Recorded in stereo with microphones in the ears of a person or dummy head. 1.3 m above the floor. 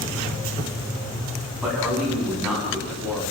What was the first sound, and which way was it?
A man speaking, 5° right (ahead or behind).